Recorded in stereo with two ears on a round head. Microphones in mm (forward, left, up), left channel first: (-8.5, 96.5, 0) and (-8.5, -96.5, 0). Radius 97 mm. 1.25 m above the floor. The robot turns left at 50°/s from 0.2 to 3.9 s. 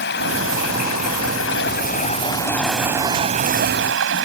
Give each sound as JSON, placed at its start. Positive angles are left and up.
{"t": 0.0, "sound": "running water", "azimuth_deg": 125}